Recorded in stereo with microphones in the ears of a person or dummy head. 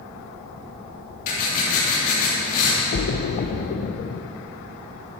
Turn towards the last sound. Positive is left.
turn(degrees=40)  # may be behind; listen again after turning